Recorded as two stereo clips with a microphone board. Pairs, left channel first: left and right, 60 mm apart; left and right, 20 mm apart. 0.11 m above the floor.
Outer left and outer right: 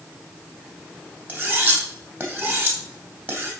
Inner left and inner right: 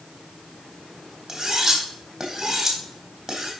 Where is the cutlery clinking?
35° right (ahead or behind), 3 m.